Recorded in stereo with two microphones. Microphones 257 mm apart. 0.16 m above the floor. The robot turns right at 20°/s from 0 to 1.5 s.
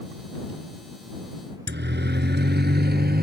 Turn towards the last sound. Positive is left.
turn(degrees=-40)  # may be behind; listen again after turning